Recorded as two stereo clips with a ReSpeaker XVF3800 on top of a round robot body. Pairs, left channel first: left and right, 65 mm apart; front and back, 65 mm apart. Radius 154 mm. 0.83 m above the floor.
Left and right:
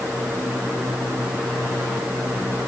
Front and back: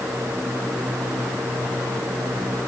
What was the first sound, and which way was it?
Only background noise.